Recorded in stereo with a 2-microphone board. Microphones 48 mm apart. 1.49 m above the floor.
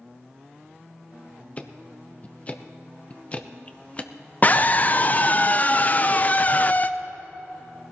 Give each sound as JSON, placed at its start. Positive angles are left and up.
{"t": 1.6, "sound": "ticking", "side_deg": 30, "distance_m": 0.7}
{"t": 4.4, "sound": "a scream", "side_deg": 35, "distance_m": 0.6}